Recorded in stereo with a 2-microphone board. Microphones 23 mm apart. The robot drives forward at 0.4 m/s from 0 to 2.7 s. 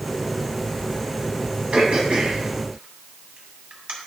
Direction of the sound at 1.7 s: 60° right (ahead or behind).